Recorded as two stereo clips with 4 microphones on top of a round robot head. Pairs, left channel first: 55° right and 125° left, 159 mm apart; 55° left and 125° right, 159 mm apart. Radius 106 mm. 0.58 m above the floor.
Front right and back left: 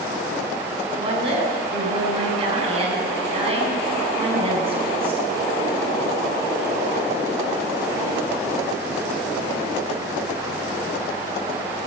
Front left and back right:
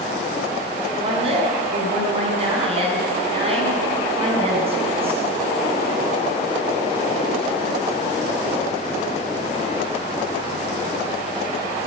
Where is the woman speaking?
Straight behind, 6 m.